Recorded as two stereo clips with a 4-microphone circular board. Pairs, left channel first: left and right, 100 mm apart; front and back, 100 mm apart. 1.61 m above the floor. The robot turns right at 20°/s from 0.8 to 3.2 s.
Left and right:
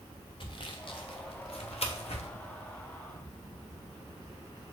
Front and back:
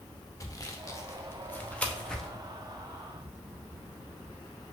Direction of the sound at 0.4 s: 55° left.